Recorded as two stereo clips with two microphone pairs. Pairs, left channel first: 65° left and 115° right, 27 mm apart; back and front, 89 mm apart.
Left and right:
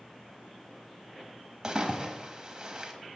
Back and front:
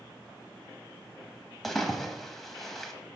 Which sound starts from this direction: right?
A splash, at 1.6 s.